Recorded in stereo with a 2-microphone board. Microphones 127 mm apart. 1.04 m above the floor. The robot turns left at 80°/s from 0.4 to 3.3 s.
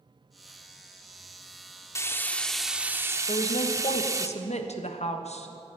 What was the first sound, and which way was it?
Frying, 25° left (ahead or behind).